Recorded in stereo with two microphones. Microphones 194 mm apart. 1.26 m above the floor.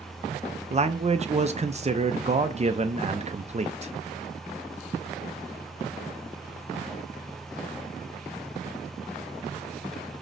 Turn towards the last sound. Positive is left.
turn(degrees=-35)  # may be behind; listen again after turning